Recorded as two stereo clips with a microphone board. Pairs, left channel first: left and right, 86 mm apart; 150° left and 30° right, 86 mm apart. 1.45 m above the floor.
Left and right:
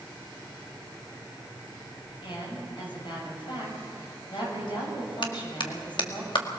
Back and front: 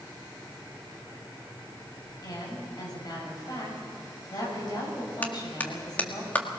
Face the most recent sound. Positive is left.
turn(degrees=80)